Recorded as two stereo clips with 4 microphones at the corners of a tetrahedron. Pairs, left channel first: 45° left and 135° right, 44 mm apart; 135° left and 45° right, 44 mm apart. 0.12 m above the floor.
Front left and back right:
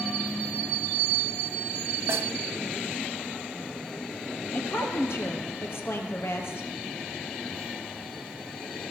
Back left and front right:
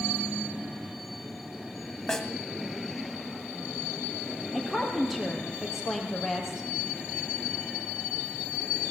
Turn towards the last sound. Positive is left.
turn(degrees=45)